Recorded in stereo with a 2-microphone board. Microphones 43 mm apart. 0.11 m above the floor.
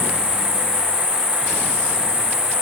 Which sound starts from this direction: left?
An insect, at 0.0 s.